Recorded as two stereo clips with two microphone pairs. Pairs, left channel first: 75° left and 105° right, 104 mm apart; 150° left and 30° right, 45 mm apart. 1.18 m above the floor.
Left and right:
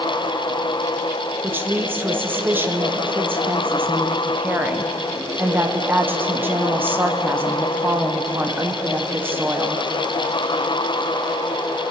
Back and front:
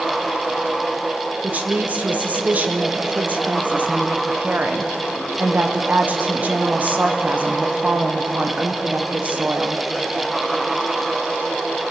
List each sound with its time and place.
1.4 s a woman speaking: 40° right, 0.7 m